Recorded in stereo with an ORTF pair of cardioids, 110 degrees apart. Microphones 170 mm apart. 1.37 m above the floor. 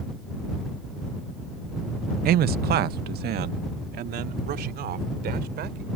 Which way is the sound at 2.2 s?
60° right.